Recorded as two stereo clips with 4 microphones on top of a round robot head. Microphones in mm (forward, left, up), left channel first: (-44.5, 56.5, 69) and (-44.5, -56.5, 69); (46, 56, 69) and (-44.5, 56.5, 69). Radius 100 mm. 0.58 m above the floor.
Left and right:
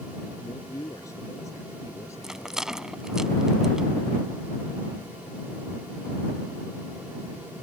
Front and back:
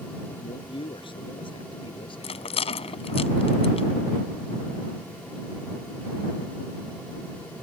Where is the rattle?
5° right.